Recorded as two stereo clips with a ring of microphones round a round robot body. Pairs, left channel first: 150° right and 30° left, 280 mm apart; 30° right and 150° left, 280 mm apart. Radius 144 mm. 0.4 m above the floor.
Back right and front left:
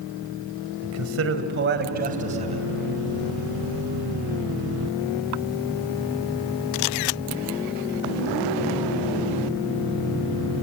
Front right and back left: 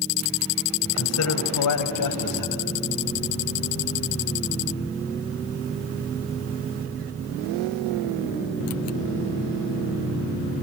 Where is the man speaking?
5° left, 2 m; by 2.6 s 40° right, 3 m.